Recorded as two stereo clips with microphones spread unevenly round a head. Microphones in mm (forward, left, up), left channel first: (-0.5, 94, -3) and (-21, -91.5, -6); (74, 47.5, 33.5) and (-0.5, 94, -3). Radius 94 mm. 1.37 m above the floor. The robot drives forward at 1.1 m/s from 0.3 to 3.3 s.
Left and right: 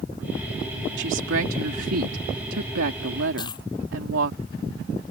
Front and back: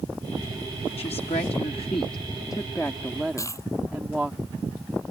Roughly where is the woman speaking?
Ahead right.